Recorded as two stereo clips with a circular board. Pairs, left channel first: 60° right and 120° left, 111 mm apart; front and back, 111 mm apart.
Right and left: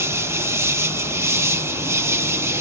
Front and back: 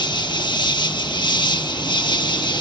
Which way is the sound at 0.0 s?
50° left.